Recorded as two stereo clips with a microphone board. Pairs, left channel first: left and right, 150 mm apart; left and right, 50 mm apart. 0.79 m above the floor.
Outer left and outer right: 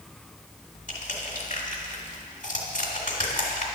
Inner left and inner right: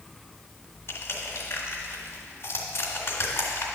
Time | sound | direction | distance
0.9 | crushing | 55° left (ahead or behind) | 1.6 m